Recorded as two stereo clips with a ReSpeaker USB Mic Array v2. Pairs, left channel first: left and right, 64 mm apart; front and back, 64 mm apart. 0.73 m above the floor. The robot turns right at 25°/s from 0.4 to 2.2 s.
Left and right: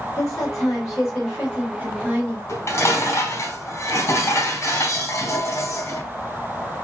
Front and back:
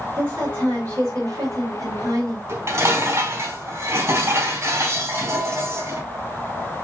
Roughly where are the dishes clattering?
Behind left.